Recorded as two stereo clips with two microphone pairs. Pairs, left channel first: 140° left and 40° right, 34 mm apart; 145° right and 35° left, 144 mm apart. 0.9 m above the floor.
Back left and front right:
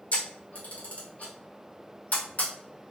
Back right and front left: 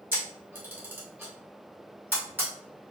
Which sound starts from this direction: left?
A camera shutter, at 0.1 s.